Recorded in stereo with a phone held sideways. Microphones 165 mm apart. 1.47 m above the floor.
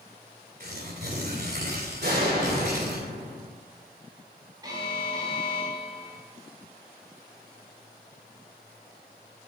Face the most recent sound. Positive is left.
turn(degrees=-25)  # may be behind; listen again after turning